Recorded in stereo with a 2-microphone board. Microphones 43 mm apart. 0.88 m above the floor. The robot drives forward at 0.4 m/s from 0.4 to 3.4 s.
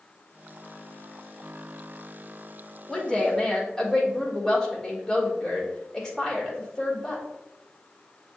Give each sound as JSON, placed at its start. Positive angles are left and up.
{"t": 2.9, "sound": "a woman speaking", "side_deg": 10, "distance_m": 1.4}